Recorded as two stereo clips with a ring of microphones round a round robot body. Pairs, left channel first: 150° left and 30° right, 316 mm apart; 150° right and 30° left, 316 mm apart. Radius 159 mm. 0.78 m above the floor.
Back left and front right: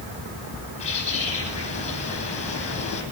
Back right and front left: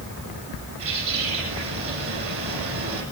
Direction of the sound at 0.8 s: 80° left.